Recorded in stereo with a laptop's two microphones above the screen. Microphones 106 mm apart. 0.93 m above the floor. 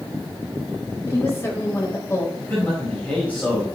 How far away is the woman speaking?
About 4.5 m.